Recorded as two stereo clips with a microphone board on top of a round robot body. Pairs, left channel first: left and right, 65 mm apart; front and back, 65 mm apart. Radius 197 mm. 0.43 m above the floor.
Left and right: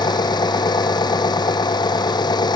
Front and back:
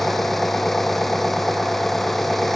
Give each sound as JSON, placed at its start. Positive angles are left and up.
{"t": 0.0, "sound": "an engine running", "azimuth_deg": 85}